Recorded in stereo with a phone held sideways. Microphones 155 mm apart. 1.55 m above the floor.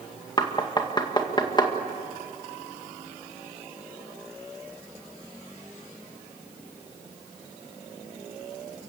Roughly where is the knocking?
Left.